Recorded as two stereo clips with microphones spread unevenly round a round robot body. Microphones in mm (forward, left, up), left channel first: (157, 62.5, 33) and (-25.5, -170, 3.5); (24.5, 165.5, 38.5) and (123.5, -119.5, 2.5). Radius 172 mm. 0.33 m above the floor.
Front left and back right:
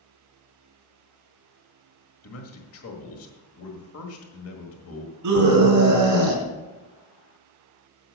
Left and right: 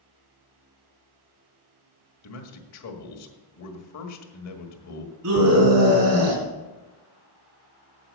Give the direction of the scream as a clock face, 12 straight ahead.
4 o'clock.